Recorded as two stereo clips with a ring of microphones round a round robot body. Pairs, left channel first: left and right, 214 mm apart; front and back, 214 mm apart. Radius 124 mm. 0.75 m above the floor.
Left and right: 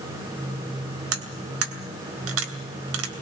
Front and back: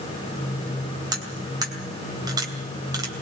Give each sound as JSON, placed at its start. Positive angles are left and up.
{"t": 1.1, "sound": "cutlery clinking", "azimuth_deg": -105, "distance_m": 2.5}